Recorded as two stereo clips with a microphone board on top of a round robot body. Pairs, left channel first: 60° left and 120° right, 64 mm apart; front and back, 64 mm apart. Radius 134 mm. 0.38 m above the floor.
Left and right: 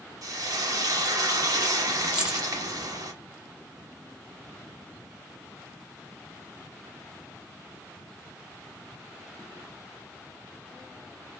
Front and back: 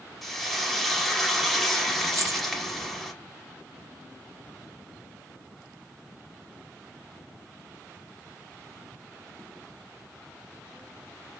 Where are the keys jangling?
165° left, 1.2 m.